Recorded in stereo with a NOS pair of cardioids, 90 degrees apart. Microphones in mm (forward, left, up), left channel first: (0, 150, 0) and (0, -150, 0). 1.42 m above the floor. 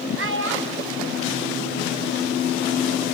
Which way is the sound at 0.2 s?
45° right.